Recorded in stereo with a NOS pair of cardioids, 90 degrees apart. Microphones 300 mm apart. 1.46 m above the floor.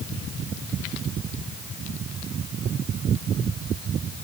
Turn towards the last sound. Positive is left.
No sound to turn to.